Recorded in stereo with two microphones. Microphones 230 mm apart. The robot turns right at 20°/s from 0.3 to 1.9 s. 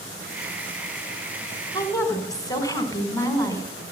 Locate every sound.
1.7 s a woman speaking: 15° left (ahead or behind), 1.6 m